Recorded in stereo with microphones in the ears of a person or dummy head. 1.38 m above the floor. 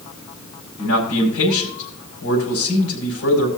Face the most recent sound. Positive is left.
turn(degrees=80)